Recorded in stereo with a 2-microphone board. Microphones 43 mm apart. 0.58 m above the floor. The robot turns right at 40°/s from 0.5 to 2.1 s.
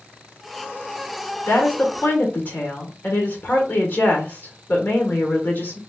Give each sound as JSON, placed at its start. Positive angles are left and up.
{"t": 1.5, "sound": "a woman speaking", "side_deg": 65, "distance_m": 1.3}